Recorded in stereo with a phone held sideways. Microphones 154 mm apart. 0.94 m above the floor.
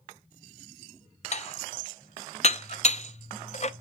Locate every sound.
1.3 s dishes clattering: 50° left (ahead or behind), 0.6 m